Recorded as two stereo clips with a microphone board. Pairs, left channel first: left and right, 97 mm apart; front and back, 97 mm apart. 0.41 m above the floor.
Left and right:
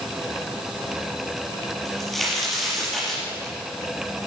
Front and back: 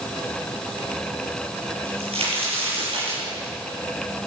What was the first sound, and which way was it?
A crack, 175° left.